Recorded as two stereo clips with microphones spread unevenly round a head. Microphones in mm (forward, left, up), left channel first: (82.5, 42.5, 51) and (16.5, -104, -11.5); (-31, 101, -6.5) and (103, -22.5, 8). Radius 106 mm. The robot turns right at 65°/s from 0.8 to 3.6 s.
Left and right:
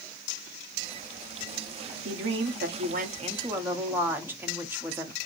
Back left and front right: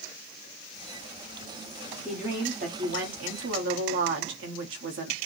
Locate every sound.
2.0 s a woman speaking: 135° right, 1.3 m; by 5.2 s 35° right, 1.3 m